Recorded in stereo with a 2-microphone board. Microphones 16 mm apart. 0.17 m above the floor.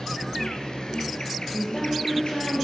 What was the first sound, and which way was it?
An insect, 55° left (ahead or behind).